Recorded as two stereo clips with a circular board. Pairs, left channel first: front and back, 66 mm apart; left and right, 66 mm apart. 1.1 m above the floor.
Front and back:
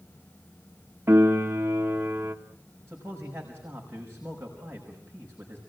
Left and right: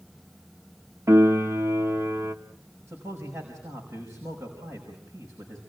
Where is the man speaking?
125° right, 5.5 m.